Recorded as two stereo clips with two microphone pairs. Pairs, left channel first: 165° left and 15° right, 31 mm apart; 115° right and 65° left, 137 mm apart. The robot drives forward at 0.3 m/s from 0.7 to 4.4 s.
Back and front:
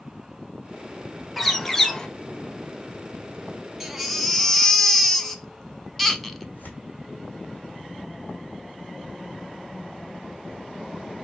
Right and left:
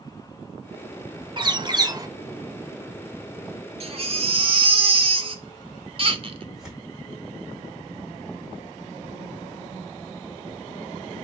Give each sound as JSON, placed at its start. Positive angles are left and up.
{"t": 1.4, "sound": "a bird", "azimuth_deg": 75, "distance_m": 0.6}
{"t": 3.8, "sound": "a baby crying", "azimuth_deg": 60, "distance_m": 0.7}
{"t": 6.5, "sound": "tearing paper", "azimuth_deg": 155, "distance_m": 2.0}